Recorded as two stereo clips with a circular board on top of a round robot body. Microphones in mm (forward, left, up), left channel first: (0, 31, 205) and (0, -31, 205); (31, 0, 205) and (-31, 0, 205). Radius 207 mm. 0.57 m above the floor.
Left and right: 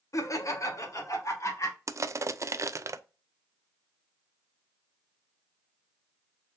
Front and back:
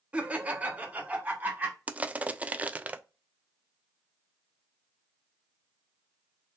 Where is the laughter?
110° left, 1.2 m; by 1.8 s 115° left, 2.0 m.